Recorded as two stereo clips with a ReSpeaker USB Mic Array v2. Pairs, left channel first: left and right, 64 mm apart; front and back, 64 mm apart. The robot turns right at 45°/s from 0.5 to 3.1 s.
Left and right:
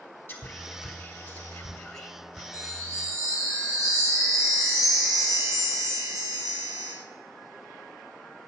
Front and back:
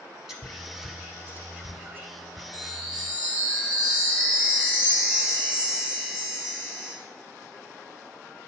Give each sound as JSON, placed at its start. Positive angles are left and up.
{"t": 0.3, "sound": "whispering", "azimuth_deg": 105, "distance_m": 1.3}
{"t": 2.5, "sound": "a chime", "azimuth_deg": -105, "distance_m": 3.5}